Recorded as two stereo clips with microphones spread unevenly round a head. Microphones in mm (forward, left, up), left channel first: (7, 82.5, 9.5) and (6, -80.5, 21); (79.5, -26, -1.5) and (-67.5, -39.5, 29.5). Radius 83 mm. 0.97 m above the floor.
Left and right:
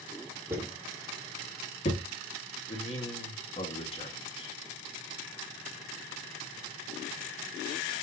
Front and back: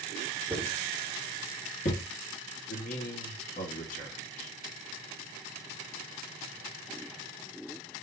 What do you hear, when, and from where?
0.5 s footsteps: 95° right, 0.9 m; by 2.0 s 50° left, 1.3 m
2.7 s a man speaking: 35° left, 1.4 m